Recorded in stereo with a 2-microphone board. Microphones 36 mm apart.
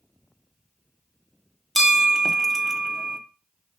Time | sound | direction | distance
1.8 | a bell | centre (ahead or behind) | 0.6 m